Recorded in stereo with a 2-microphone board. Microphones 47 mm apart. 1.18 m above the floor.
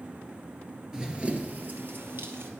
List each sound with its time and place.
0.9 s running footsteps: 15° right (ahead or behind), 1.2 m; by 2.5 s 55° right (ahead or behind), 2.0 m